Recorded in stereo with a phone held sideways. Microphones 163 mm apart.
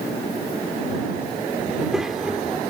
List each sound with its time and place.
1.7 s a child speaking: centre (ahead or behind)